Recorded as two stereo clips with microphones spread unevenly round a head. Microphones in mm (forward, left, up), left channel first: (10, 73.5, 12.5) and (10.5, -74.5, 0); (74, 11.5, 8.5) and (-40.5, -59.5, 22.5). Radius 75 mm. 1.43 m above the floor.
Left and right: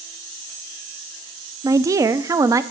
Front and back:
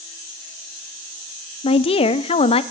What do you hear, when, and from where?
1.6 s a woman speaking: 20° right, 0.5 m